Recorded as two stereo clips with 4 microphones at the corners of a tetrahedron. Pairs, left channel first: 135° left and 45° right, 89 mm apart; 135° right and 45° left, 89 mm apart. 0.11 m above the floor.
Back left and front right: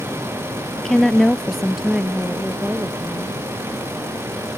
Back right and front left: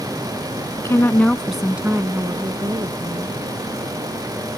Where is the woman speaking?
145° right; by 3.4 s 35° left.